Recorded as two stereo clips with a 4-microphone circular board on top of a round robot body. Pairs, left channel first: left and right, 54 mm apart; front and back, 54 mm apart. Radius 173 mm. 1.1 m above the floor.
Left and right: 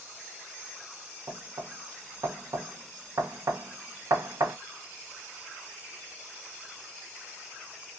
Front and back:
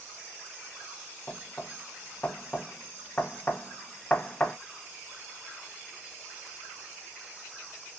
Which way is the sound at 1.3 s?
65° right.